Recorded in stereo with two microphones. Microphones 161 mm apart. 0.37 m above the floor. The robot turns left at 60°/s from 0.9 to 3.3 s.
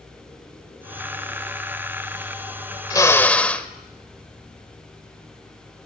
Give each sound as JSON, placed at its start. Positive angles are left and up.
{"t": 2.9, "sound": "a drill", "side_deg": 25, "distance_m": 1.0}